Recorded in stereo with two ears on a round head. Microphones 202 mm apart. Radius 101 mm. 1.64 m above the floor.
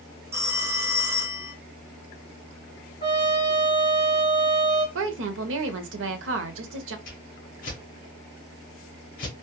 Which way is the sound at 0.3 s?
15° right (ahead or behind).